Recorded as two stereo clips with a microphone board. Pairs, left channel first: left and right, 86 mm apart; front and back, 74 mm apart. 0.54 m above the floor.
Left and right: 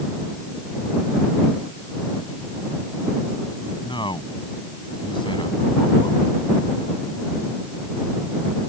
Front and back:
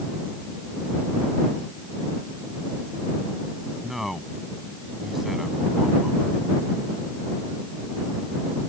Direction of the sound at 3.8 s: 95° left.